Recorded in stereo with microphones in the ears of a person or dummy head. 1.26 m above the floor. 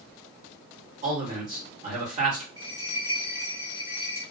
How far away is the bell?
About 0.9 m.